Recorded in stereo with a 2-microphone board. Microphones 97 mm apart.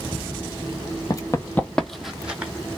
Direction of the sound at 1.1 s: 40° left (ahead or behind).